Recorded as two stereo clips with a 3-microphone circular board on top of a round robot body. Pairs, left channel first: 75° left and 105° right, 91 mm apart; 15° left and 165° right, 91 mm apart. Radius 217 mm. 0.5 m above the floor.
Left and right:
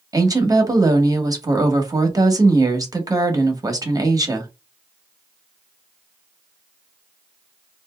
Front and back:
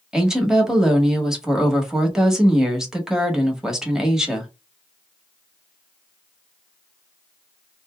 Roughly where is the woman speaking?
Right.